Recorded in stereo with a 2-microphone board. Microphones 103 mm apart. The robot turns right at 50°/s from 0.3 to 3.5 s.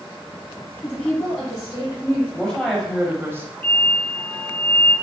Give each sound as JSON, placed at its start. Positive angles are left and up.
{"t": 0.8, "sound": "a woman speaking", "azimuth_deg": 150, "distance_m": 2.5}
{"t": 2.3, "sound": "a woman speaking", "azimuth_deg": 160, "distance_m": 1.4}
{"t": 3.6, "sound": "an explosion", "side_deg": 20, "distance_m": 1.7}